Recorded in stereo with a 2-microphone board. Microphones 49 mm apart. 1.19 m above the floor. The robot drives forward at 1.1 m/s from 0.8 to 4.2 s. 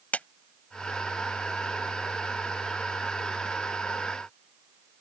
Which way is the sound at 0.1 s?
30° left (ahead or behind).